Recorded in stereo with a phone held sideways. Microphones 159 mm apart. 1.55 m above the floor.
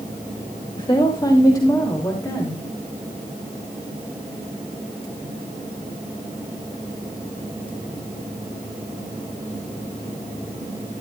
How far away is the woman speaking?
About 2 m.